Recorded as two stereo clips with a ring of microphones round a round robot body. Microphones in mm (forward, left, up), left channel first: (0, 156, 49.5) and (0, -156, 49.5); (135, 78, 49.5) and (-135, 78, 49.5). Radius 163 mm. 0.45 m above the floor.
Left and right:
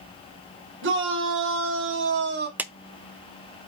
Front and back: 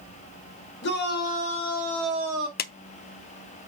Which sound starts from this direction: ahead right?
A shout, at 0.8 s.